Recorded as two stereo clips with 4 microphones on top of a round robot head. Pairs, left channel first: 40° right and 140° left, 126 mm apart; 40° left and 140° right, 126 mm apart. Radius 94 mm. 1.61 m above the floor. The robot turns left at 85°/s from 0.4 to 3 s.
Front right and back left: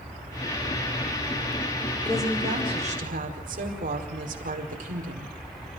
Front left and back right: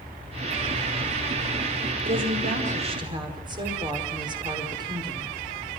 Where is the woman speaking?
120° right, 5 m; by 5.3 s 160° left, 5 m.